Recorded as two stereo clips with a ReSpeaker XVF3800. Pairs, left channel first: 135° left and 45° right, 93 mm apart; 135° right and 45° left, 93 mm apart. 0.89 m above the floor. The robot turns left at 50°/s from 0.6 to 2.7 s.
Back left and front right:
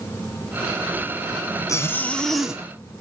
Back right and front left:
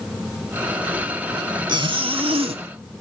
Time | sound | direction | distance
1.7 | a zipper | 80° left | 1.7 m